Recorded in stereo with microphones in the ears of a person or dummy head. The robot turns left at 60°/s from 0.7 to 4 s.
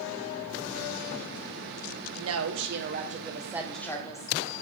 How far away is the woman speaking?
About 0.9 m.